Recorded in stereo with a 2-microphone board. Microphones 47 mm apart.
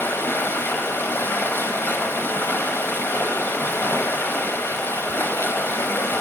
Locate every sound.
0.0 s running water: 50° left (ahead or behind), 1.1 m